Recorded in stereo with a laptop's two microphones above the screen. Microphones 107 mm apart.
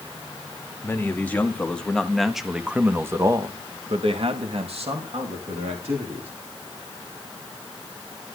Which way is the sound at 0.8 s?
20° left (ahead or behind).